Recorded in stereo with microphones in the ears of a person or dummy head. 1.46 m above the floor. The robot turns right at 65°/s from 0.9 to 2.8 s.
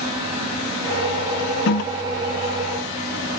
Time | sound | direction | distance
1.7 | a toilet flushing | 50° left (ahead or behind) | 0.6 m